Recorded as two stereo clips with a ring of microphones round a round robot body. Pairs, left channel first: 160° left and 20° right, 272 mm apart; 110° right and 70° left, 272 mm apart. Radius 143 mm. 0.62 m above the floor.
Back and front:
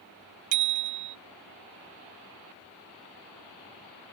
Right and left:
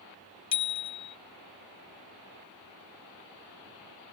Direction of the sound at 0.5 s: 40° right.